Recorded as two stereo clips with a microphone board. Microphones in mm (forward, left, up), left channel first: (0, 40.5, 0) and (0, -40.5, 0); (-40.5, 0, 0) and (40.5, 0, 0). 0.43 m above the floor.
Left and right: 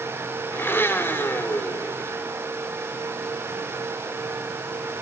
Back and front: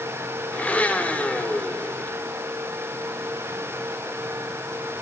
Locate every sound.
0.5 s a blender: 125° left, 0.9 m